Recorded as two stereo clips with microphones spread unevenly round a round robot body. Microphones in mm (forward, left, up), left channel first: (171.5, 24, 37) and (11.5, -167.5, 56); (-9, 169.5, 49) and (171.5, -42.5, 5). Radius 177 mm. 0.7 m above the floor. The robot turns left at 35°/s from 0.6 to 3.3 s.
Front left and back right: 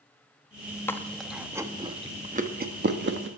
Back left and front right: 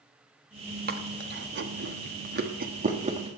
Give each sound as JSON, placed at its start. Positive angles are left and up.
{"t": 0.9, "sound": "chewing", "azimuth_deg": -25, "distance_m": 1.4}